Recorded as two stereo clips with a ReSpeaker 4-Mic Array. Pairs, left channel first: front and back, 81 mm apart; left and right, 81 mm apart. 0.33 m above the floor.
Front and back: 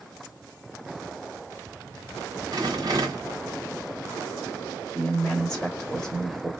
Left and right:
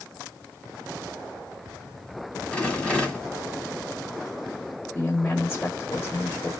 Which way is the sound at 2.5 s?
165° left.